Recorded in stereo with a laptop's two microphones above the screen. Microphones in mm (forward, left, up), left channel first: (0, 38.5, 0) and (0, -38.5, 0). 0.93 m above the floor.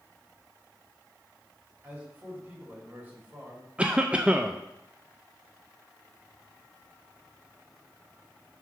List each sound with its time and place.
1.8 s a man speaking: 25° right (ahead or behind), 2.5 m
3.8 s a cough: 15° right (ahead or behind), 0.5 m